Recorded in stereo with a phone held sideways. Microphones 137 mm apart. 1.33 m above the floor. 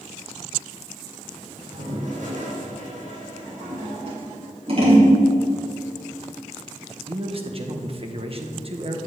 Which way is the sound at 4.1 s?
45° right (ahead or behind).